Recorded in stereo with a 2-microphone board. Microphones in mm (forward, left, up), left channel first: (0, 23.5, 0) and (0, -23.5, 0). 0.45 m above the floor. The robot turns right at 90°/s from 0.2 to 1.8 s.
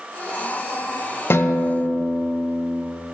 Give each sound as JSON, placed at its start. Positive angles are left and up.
{"t": 1.3, "sound": "a guitar", "azimuth_deg": 70, "distance_m": 1.2}